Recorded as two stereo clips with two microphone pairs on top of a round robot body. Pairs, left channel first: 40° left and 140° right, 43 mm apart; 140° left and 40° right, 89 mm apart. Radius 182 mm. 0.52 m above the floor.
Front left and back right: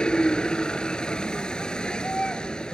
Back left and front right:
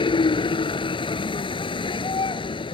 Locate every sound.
0.0 s a vehicle: 110° left